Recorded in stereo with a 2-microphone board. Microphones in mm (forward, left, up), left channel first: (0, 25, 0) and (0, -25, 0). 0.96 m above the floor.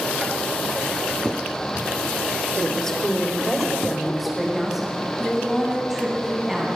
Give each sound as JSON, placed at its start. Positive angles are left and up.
{"t": 2.6, "sound": "a woman speaking", "side_deg": 15, "distance_m": 3.0}